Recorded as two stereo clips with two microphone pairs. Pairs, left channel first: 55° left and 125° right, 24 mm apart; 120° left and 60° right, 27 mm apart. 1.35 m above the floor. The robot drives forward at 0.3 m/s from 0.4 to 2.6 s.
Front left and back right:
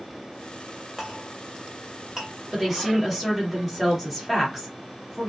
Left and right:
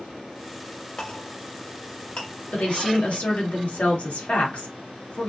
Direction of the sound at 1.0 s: 160° left.